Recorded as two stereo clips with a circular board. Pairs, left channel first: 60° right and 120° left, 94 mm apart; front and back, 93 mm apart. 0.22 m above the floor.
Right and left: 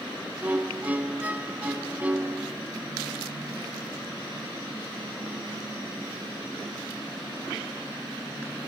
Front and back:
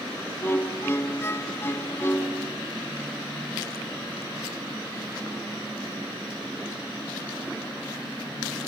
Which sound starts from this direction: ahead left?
A violin, at 0.4 s.